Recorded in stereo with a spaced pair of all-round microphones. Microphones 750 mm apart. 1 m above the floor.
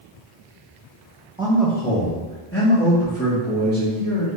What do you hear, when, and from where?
1.4 s a man speaking: 5° right (ahead or behind), 0.7 m; by 4.3 s 20° left (ahead or behind), 2.5 m